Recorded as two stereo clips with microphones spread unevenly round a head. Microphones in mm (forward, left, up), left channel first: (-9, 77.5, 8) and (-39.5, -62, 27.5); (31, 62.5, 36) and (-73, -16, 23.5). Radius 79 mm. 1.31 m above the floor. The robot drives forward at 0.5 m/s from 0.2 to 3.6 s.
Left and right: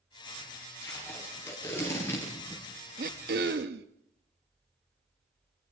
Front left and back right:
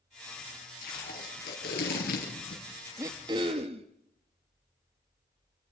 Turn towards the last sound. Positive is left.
turn(degrees=-85)